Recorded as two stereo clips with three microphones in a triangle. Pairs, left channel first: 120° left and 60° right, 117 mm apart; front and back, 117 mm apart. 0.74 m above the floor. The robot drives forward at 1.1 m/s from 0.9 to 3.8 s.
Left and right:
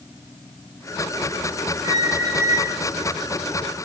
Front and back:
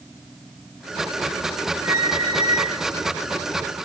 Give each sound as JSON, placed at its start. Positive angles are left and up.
{"t": 1.8, "sound": "a squeak", "azimuth_deg": -115, "distance_m": 3.0}